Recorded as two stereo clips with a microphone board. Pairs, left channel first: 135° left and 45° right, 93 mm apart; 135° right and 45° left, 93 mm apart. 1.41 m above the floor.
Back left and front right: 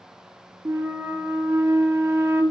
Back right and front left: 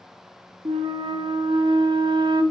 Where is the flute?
20° left, 0.7 m.